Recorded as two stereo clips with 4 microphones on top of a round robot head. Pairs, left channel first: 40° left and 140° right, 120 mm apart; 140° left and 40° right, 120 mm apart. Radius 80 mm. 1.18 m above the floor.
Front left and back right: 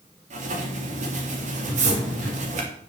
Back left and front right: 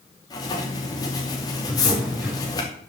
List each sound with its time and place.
0.3 s writing: 165° right, 2.5 m
1.6 s a drawer: 125° right, 6.5 m